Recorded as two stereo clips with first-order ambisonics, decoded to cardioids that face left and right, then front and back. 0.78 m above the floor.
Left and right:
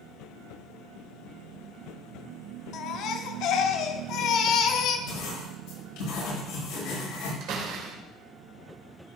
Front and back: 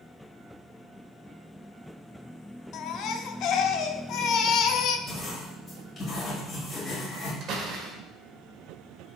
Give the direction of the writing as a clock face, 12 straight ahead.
10 o'clock.